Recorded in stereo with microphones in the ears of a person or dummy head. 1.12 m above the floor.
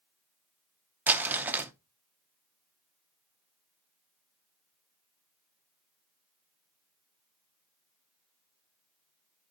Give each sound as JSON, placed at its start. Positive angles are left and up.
{"t": 1.1, "sound": "crumpling", "side_deg": -10, "distance_m": 0.6}